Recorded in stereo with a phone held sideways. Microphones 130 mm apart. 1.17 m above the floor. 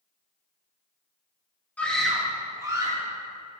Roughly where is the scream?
Centre.